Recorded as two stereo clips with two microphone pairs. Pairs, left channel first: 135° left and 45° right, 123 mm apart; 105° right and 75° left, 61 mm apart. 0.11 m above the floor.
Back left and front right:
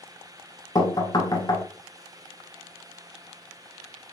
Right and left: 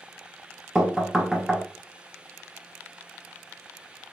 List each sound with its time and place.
0.8 s knocking: 155° left, 0.8 m